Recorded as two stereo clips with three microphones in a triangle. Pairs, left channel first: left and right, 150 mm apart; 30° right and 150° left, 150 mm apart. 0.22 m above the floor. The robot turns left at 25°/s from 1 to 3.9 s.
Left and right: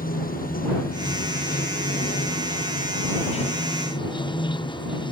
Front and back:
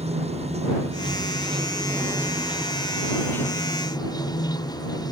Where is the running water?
105° left; by 5.1 s 35° left.